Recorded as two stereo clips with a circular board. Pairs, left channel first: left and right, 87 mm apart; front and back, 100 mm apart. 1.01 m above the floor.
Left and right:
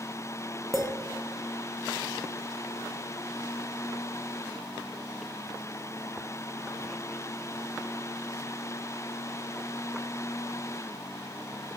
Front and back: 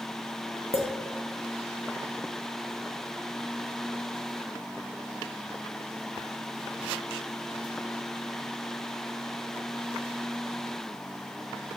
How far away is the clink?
About 0.6 m.